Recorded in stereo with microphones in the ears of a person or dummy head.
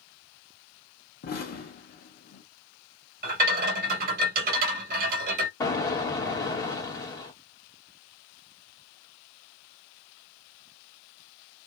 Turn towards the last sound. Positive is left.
turn(degrees=20)  # may be behind; listen again after turning